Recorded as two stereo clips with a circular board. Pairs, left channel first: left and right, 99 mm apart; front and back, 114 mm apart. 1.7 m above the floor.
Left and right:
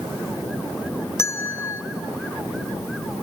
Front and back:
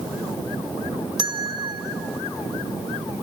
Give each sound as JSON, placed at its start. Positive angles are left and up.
{"t": 1.2, "sound": "a bell", "azimuth_deg": 145, "distance_m": 0.8}